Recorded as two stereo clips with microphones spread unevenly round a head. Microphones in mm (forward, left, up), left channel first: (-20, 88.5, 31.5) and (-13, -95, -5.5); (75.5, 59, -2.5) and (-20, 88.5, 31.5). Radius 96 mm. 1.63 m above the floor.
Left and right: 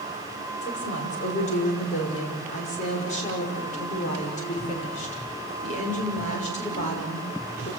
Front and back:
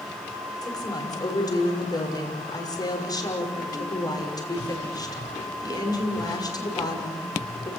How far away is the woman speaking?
About 6 m.